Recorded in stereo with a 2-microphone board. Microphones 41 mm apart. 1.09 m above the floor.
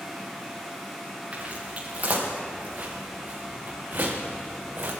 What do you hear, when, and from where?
1.3 s footsteps: 35° right (ahead or behind), 5.5 m; by 4.9 s 65° right (ahead or behind), 3.5 m